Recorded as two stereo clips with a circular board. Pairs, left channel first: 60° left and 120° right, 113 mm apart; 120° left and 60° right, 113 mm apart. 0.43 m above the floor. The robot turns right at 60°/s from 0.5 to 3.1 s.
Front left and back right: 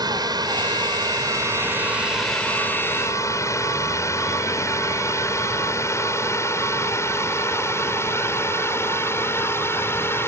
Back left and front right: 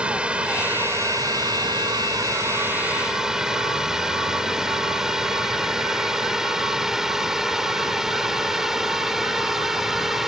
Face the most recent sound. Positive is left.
turn(degrees=25)